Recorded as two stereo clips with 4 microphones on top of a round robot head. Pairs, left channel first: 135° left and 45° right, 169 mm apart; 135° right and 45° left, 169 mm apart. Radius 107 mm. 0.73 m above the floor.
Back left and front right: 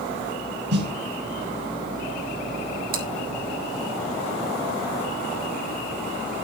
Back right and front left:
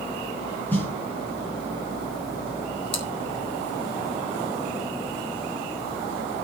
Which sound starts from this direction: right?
Chewing, at 2.9 s.